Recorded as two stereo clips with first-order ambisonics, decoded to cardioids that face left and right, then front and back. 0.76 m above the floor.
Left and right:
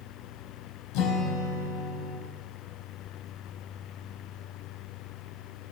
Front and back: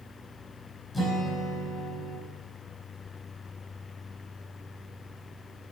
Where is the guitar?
75° left, 4 m.